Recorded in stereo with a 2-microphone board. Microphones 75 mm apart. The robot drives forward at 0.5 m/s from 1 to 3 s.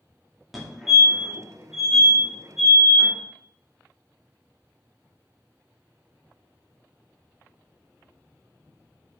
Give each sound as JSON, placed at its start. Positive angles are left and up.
{"t": 0.5, "sound": "a fire alarm", "side_deg": 0, "distance_m": 2.0}